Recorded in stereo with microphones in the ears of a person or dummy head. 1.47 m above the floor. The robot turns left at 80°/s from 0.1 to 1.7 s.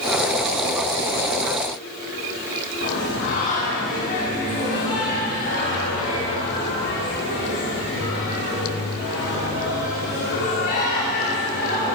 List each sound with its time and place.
2.8 s singing: 45° left (ahead or behind), 1.4 m